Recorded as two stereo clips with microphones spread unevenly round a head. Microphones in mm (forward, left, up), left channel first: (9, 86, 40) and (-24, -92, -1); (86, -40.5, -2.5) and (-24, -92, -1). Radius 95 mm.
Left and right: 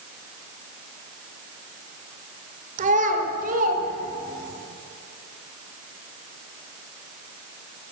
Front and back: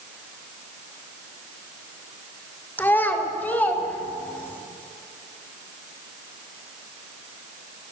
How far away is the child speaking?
About 2 m.